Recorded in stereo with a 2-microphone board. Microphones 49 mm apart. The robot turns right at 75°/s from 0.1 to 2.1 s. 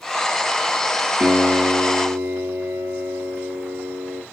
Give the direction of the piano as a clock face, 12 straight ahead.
5 o'clock.